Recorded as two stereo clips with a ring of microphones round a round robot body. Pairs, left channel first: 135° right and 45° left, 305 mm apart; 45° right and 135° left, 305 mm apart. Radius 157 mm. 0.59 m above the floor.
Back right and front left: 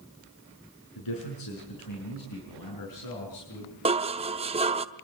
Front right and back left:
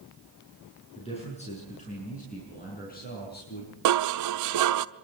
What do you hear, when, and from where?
0.9 s a man speaking: 115° right, 6.5 m; by 3.8 s 100° right, 5 m
3.9 s dishes clattering: 115° left, 0.7 m